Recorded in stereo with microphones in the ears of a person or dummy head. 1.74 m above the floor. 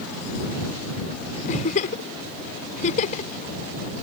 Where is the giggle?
40° left (ahead or behind).